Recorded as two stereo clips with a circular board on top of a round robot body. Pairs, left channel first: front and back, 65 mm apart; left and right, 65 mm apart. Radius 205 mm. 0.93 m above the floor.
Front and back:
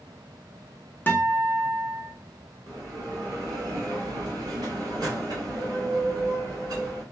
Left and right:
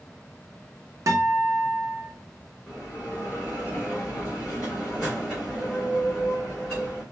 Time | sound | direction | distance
1.1 | a guitar | 55° right | 0.8 m
2.7 | a bell | 175° left | 0.7 m